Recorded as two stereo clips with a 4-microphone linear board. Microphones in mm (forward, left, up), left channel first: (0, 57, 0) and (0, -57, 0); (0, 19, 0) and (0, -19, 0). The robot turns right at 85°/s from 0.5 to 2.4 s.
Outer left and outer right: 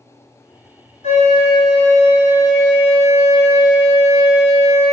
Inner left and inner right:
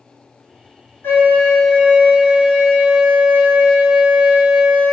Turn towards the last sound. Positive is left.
turn(degrees=-145)